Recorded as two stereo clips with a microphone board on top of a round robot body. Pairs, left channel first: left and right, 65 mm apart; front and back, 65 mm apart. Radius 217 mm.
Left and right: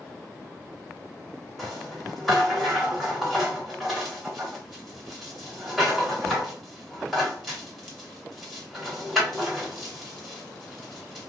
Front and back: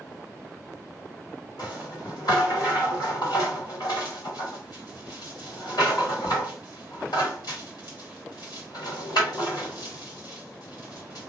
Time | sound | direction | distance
1.6 | a rattle | straight ahead | 1.8 m